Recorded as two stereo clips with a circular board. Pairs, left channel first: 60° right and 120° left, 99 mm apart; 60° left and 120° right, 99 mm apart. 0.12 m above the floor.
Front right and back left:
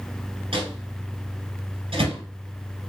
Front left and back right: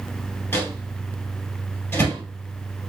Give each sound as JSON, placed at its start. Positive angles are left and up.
{"t": 0.5, "sound": "a microwave", "azimuth_deg": 125, "distance_m": 2.0}